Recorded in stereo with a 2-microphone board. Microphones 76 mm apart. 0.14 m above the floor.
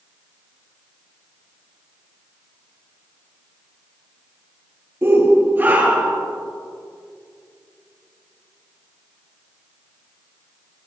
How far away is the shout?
About 2.5 m.